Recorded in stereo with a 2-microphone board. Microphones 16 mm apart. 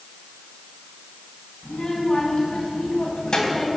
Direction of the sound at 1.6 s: 50° left (ahead or behind).